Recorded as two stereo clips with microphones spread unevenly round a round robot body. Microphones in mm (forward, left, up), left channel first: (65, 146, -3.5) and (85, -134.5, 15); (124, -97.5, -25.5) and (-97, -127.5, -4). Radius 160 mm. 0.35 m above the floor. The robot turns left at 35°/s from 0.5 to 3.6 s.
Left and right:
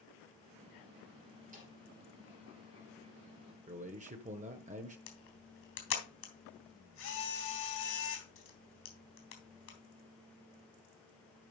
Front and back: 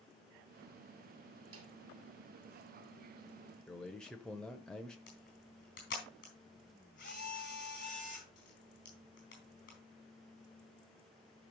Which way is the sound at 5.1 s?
65° left.